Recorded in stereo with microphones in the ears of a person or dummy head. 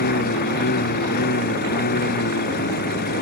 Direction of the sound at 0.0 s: 60° left (ahead or behind).